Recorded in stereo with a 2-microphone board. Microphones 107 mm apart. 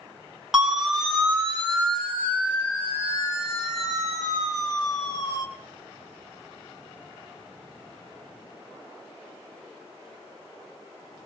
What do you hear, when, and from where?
0.5 s a siren: 5° right (ahead or behind), 3 m; by 5.5 s 40° left (ahead or behind), 4.5 m